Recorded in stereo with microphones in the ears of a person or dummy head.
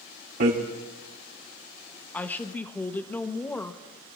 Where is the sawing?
I don't hear sawing.